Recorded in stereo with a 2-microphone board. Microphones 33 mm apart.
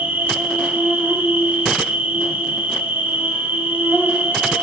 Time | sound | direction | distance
0.0 | an insect | 70° right (ahead or behind) | 6.5 m